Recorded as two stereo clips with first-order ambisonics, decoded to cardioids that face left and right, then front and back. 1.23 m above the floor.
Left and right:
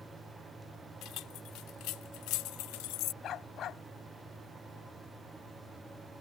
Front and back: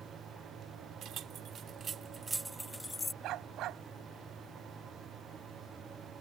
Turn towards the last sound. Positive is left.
turn(degrees=140)